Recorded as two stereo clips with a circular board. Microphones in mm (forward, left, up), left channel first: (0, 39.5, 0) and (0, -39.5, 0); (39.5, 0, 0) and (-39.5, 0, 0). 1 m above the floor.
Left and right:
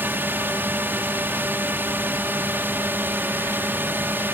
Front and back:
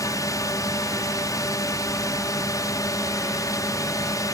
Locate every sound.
0.0 s a drone: 30° right